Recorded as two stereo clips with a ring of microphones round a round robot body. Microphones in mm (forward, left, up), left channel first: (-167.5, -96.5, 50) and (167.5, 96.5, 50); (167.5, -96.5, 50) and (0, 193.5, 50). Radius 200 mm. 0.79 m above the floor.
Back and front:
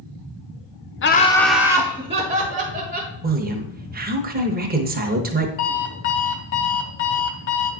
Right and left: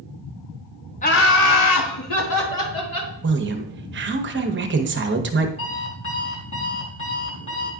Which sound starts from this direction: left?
A woman speaking, at 3.2 s.